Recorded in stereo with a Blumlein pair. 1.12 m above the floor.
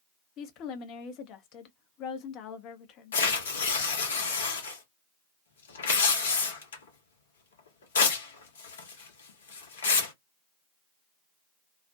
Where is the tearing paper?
65° left, 0.8 m.